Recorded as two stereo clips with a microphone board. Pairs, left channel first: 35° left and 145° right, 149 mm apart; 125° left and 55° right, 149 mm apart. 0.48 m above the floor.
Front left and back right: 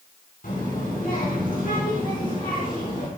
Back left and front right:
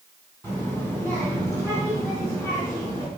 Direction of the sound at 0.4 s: 50° left.